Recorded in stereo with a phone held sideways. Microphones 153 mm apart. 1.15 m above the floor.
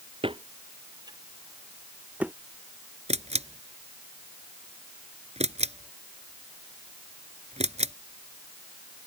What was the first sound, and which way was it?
Footsteps, 35° right (ahead or behind).